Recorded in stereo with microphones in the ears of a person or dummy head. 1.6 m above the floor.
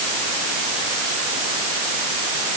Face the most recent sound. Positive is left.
No sound to turn to.